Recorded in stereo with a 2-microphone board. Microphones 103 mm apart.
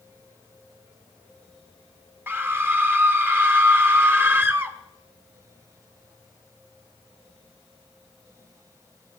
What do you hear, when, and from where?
2.3 s a scream: 20° right (ahead or behind), 1.3 m